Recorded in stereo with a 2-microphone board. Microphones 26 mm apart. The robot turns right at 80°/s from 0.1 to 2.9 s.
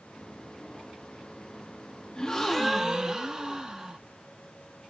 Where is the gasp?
140° left, 0.5 m; by 4.0 s 160° right, 0.5 m.